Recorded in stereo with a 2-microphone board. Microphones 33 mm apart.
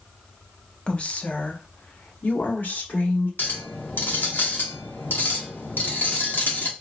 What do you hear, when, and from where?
0.9 s a woman speaking: 30° left (ahead or behind), 0.6 m; by 3.3 s 65° left (ahead or behind), 1.6 m
3.4 s a clink: 65° left (ahead or behind), 0.9 m